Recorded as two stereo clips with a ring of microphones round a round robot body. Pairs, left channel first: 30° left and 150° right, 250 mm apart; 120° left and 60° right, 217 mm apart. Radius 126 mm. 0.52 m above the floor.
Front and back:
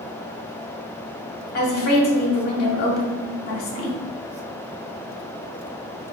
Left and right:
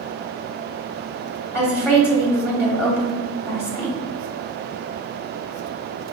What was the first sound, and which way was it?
A woman speaking, 50° left.